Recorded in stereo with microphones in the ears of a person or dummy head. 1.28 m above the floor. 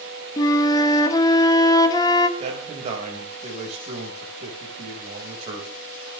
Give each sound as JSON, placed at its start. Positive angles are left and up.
{"t": 0.4, "sound": "a flute", "side_deg": 25, "distance_m": 1.5}
{"t": 2.4, "sound": "a man speaking", "side_deg": -35, "distance_m": 5.0}